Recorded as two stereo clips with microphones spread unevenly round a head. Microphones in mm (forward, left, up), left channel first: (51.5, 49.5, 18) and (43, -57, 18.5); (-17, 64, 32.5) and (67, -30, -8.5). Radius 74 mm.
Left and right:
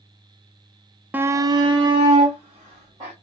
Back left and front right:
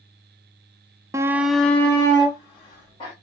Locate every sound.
1.1 s a shout: 30° right, 0.5 m; by 3.1 s 160° right, 1.9 m